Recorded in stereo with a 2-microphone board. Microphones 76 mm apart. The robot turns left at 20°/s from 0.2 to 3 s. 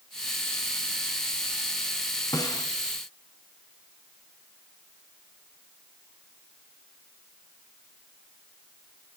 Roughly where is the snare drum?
Left.